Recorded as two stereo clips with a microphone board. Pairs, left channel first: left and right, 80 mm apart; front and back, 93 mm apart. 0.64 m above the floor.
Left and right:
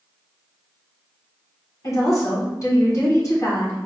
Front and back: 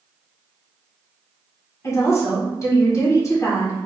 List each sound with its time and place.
1.8 s a woman speaking: 50° left, 1.8 m